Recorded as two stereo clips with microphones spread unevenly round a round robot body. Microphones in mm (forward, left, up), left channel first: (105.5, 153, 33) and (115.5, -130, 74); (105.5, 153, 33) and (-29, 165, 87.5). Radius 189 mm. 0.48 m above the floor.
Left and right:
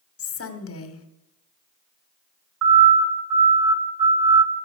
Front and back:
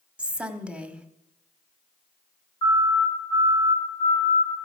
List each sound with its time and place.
0.2 s a woman speaking: 80° left, 1.7 m
2.6 s a siren: 70° right, 4 m; by 4.5 s 85° right, 5 m